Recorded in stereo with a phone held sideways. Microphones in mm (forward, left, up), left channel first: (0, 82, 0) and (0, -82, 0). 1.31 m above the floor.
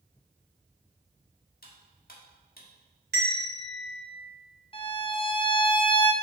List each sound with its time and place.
1.6 s cutlery clinking: 65° left (ahead or behind), 1.4 m
3.1 s a bell: 80° right, 1.8 m
4.7 s a violin: 30° left (ahead or behind), 0.7 m